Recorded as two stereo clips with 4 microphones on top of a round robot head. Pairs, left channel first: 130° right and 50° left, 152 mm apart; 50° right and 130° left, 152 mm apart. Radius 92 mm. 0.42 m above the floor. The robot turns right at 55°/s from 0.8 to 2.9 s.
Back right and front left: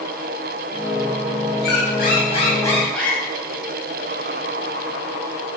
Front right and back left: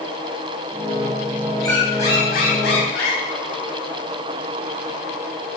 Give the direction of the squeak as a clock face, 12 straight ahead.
4 o'clock.